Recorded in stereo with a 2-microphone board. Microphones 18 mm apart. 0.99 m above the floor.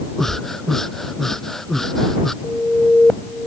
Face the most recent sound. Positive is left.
turn(degrees=65)  # may be behind; listen again after turning